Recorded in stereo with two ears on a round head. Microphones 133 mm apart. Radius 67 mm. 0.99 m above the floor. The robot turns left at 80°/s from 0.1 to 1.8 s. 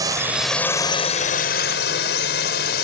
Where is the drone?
25° right (ahead or behind); by 2.8 s 75° left (ahead or behind).